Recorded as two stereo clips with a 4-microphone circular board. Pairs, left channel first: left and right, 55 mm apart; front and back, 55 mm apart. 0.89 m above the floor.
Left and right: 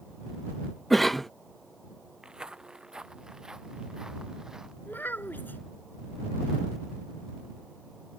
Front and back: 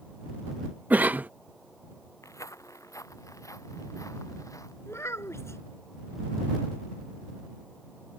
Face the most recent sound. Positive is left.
turn(degrees=35)